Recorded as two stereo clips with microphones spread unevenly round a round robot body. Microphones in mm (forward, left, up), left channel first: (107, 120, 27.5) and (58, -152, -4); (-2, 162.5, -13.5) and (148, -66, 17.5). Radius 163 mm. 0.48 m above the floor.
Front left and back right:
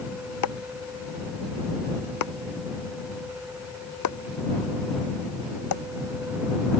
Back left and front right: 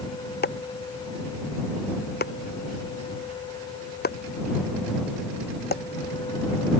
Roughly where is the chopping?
Left.